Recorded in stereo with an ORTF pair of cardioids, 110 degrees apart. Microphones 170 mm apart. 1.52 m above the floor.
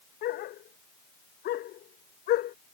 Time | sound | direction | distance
0.2 | a dog barking | 70° left | ?